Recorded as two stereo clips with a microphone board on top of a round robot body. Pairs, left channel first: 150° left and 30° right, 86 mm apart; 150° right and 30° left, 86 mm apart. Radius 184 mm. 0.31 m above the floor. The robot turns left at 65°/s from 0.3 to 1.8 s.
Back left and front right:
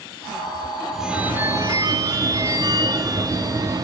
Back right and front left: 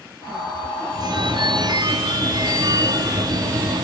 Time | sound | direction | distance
0.9 | a phone ringing | 60° left | 1.2 m